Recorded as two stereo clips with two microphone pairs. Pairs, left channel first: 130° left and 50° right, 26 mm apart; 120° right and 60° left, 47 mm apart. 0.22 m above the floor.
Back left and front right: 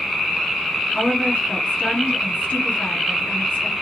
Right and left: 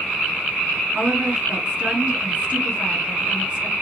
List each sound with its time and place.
0.9 s a woman speaking: 115° left, 3.5 m